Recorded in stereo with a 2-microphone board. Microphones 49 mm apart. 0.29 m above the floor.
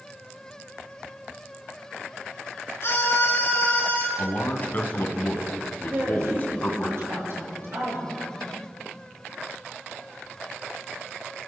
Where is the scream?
55° left (ahead or behind), 4 m; by 4.1 s 45° left (ahead or behind), 4 m.